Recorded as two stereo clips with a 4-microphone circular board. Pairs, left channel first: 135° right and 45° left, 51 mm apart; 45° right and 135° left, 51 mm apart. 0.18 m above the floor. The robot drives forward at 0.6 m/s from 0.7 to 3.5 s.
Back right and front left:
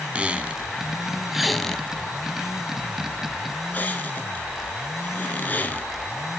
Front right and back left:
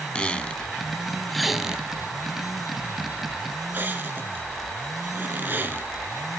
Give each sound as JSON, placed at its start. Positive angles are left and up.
{"t": 0.1, "sound": "a squeak", "azimuth_deg": 5, "distance_m": 0.8}